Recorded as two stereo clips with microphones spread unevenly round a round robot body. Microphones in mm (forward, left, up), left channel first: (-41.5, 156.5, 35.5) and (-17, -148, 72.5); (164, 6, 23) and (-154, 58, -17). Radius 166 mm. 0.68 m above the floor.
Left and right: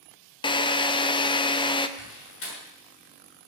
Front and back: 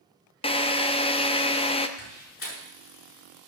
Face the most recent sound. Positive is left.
turn(degrees=45)